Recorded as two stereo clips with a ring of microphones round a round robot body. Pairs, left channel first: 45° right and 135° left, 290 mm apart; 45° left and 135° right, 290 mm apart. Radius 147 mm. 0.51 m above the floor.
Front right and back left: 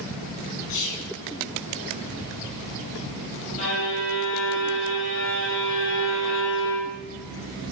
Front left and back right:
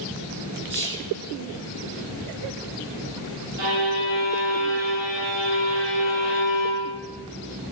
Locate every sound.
0.7 s whispering: 65° right, 7 m
3.6 s a violin: 110° right, 6 m